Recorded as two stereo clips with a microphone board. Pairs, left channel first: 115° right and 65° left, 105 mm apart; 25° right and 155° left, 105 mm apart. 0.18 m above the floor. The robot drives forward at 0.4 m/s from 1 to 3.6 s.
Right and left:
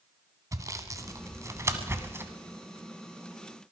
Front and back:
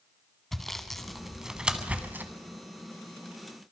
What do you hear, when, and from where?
0.5 s sawing: 60° left, 1.3 m; by 2.3 s 110° left, 1.3 m